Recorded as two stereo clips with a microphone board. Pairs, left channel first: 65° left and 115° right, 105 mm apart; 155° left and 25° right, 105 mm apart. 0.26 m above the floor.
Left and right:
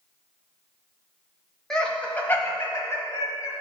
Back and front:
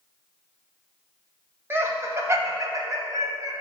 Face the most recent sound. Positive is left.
turn(degrees=20)